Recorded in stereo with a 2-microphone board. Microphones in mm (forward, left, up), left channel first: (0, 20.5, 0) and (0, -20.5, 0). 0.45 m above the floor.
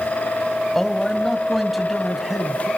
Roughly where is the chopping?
No chopping in this recording.